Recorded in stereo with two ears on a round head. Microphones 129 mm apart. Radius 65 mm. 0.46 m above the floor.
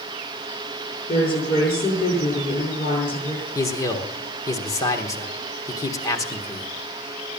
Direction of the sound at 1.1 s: 45° left (ahead or behind).